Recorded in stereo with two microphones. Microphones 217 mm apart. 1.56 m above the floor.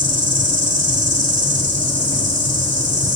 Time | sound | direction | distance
0.0 | an insect | 35° right (ahead or behind) | 4 m